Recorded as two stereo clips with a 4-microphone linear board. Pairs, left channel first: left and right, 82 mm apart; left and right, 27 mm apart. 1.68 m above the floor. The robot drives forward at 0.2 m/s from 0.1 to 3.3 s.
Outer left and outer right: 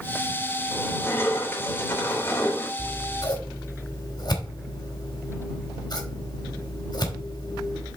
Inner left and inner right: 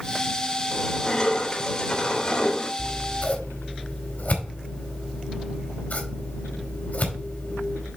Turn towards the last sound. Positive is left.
turn(degrees=60)  # may be behind; listen again after turning